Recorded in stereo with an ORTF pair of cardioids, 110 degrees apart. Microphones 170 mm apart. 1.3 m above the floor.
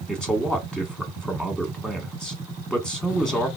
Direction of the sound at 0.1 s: 5° left.